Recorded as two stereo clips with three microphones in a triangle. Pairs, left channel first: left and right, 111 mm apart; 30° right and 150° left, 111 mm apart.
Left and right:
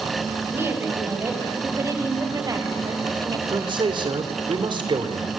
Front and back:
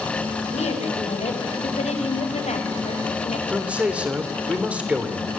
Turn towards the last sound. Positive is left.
turn(degrees=-130)